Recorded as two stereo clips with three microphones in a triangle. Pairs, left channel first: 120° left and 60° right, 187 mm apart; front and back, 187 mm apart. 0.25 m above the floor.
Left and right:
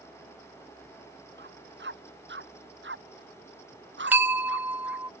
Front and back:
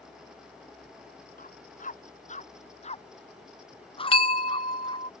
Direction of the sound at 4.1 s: 10° left.